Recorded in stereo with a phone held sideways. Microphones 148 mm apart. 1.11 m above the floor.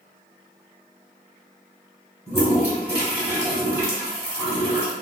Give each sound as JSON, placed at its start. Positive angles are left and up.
{"t": 2.3, "sound": "a toilet flushing", "side_deg": -15, "distance_m": 1.5}